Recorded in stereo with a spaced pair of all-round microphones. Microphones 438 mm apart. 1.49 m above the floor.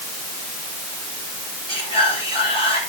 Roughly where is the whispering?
Centre.